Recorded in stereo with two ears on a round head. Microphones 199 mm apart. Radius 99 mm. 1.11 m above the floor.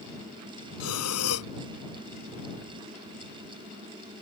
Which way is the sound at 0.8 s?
80° left.